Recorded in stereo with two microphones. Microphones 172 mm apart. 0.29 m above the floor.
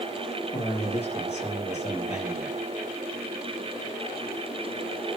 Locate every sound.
0.5 s a man speaking: 40° left (ahead or behind), 8 m